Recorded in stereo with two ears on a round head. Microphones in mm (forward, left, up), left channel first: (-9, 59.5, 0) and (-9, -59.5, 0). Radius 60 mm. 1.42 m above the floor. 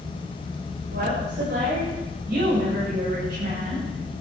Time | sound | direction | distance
0.9 | a woman speaking | 90° right | 7.5 m